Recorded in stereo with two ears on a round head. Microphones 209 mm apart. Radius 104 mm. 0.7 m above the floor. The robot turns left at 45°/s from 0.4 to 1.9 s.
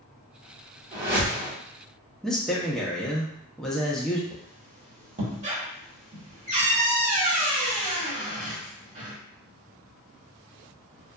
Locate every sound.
0.9 s a whoosh: 35° right (ahead or behind), 1.4 m; by 1.5 s 15° right (ahead or behind), 1.4 m
2.2 s a man speaking: centre (ahead or behind), 0.5 m
4.3 s a squeak: 35° right (ahead or behind), 1.1 m